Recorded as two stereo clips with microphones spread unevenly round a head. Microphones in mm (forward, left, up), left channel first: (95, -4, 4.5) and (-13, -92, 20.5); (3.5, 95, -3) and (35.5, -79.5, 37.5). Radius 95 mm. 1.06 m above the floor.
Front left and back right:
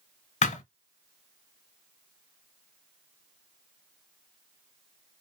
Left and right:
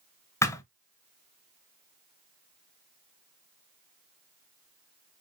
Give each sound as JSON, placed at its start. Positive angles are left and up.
{"t": 0.4, "sound": "a thud", "azimuth_deg": 20, "distance_m": 1.1}